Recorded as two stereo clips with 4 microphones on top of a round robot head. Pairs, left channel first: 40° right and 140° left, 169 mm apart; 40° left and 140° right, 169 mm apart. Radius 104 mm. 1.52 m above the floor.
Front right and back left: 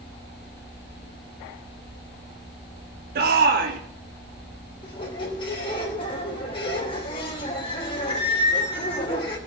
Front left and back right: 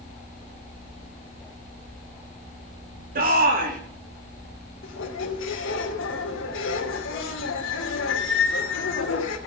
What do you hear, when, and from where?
3.1 s a shout: 175° left, 3 m
4.8 s a squeak: 25° left, 3 m